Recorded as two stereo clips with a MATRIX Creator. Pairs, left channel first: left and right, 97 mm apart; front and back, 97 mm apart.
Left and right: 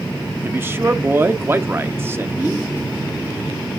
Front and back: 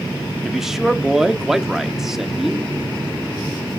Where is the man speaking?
100° right, 1.0 m.